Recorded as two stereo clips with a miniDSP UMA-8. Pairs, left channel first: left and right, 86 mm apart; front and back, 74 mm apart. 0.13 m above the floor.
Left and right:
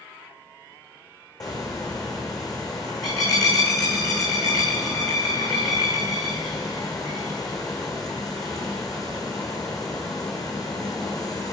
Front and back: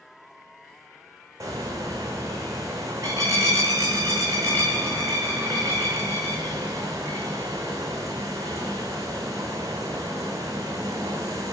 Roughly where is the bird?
Behind left.